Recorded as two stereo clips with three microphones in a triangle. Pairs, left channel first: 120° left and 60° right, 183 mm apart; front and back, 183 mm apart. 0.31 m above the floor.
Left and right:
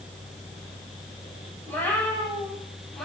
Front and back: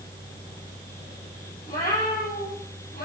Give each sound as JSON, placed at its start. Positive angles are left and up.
{"t": 1.7, "sound": "a cat meowing", "azimuth_deg": 40, "distance_m": 6.0}